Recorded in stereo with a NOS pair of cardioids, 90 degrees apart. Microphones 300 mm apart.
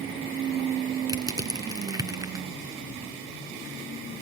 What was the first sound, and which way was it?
Crushing, 10° right.